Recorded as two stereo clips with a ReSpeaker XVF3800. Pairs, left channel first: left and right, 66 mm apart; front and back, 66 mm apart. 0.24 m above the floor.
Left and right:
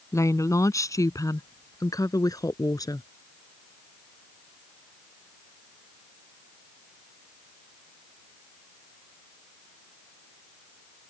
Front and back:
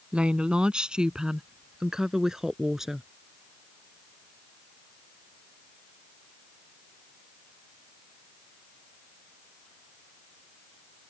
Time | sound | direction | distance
0.1 | a woman speaking | 110° left | ?